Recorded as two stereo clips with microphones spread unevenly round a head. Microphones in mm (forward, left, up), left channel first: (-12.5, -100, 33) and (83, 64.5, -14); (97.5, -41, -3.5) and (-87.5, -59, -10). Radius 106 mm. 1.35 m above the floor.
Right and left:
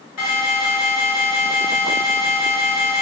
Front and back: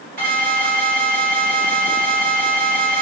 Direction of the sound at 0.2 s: 135° right.